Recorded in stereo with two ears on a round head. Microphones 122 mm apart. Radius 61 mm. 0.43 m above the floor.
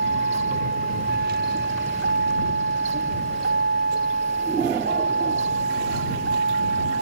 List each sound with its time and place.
0.0 s a vehicle: 75° right (ahead or behind); by 7.0 s 85° right